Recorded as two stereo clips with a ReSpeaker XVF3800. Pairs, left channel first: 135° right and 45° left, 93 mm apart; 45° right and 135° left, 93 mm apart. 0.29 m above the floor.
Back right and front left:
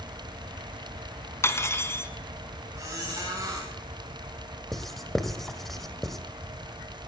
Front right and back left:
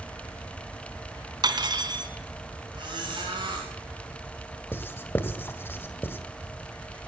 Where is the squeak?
105° left, 9 m.